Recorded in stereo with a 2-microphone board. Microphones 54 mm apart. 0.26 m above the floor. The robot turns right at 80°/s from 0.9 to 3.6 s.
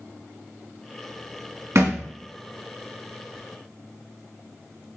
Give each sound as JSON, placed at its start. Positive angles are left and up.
{"t": 1.8, "sound": "a thud", "side_deg": -60, "distance_m": 1.0}